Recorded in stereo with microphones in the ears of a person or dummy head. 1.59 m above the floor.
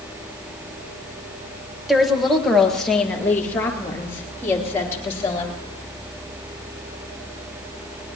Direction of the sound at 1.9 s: 5° right (ahead or behind).